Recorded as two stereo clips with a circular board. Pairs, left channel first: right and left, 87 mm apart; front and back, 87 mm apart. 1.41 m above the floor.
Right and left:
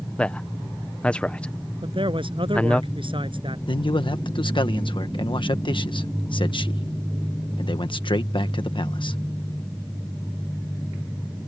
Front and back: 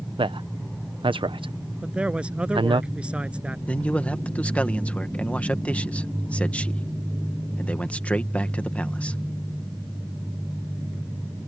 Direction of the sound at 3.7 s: 75° right.